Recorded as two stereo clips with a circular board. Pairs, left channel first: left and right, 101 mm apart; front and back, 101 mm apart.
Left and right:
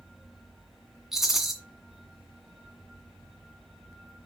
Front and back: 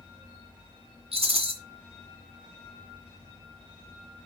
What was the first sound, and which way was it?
A rattle, 175° right.